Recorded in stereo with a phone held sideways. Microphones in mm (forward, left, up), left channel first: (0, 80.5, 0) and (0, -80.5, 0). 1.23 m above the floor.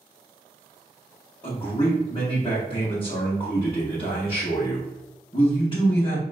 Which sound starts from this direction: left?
A man speaking, at 1.4 s.